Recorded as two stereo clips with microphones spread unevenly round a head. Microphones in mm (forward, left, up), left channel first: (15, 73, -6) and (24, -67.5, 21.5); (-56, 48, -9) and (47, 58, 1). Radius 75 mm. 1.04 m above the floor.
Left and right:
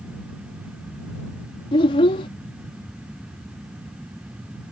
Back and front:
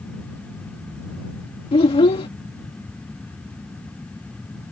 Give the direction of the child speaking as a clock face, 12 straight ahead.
7 o'clock.